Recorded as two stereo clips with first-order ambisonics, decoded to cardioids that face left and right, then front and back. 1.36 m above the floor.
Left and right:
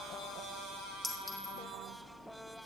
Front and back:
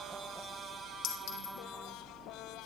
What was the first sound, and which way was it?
A clink, 10° left.